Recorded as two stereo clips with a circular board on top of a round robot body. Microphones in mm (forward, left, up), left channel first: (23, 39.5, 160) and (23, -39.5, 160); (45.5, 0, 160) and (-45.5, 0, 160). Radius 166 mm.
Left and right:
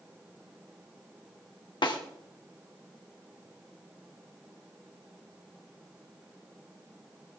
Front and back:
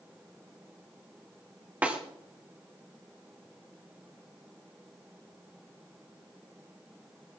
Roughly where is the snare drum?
Left.